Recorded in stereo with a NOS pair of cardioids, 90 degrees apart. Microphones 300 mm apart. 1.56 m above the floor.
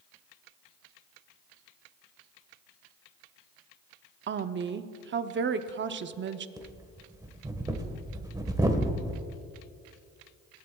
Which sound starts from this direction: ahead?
Breathing, at 6.6 s.